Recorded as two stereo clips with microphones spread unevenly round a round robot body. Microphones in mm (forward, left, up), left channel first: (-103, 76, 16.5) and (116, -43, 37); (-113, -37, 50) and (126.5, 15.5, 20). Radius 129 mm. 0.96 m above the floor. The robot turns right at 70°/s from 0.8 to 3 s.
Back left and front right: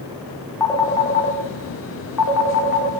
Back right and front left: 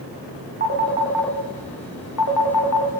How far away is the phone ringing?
About 1.7 m.